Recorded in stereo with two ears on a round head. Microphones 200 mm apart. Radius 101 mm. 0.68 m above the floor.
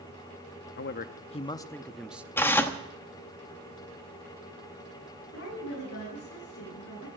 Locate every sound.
0.8 s a man speaking: 50° left (ahead or behind), 0.7 m; by 2.3 s 5° right (ahead or behind), 0.8 m
2.4 s tearing paper: 10° left (ahead or behind), 1.1 m
5.3 s a woman speaking: 55° left (ahead or behind), 7 m